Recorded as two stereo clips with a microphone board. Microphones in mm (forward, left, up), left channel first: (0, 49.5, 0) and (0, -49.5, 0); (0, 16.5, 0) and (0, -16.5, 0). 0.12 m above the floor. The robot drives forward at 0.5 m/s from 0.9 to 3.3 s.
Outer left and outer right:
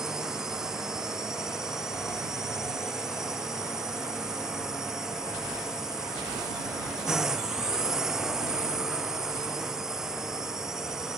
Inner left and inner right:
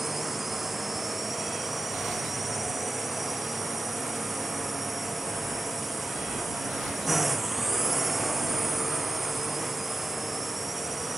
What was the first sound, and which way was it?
A drone, 5° right (ahead or behind).